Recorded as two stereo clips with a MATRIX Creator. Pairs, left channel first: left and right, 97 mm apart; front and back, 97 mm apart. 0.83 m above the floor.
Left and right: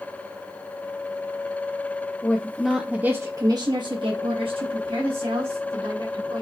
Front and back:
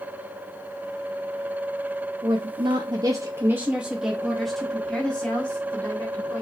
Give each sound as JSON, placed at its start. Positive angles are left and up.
{"t": 2.2, "sound": "a woman speaking", "azimuth_deg": 160, "distance_m": 0.7}